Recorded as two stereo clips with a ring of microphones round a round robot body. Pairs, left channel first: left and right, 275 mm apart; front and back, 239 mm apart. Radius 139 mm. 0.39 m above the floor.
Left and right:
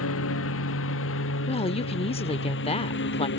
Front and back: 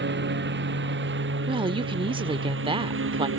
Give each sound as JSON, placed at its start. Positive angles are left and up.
{"t": 0.0, "sound": "a lawn mower", "azimuth_deg": 135}
{"t": 1.5, "sound": "a woman speaking", "azimuth_deg": 135}